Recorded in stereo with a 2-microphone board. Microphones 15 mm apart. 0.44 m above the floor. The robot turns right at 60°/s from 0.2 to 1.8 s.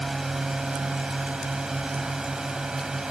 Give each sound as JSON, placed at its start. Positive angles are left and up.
{"t": 0.0, "sound": "a drone", "azimuth_deg": -150}